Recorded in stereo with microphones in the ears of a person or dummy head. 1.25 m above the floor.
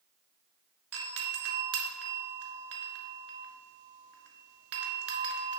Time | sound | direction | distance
0.9 | a doorbell | 55° right (ahead or behind) | 1.3 m